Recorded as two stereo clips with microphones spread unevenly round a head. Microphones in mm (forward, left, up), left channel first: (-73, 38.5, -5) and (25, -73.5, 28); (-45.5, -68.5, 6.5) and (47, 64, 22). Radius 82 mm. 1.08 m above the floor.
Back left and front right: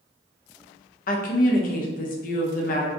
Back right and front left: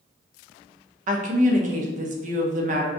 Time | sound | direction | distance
1.1 | a woman speaking | 100° left | 0.6 m